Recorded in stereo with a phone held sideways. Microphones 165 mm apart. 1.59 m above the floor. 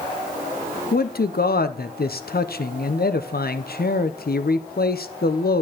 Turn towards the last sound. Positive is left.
turn(degrees=70)  # may be behind; listen again after turning